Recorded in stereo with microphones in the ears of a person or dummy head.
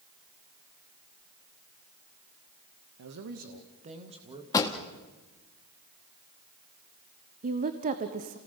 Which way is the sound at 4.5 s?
15° left (ahead or behind).